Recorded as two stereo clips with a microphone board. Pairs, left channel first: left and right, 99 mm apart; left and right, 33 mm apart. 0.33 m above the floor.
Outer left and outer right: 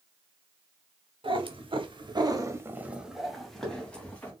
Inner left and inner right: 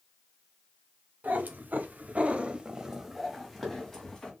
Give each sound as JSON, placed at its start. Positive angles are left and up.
{"t": 1.2, "sound": "a cat meowing", "side_deg": -60, "distance_m": 0.8}